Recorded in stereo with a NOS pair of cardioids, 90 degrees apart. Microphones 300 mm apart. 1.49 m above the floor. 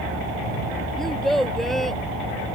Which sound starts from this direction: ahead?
A child speaking, at 1.0 s.